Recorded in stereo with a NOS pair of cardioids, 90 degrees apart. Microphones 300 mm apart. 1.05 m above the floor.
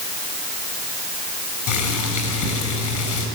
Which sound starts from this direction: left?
Boiling, at 1.7 s.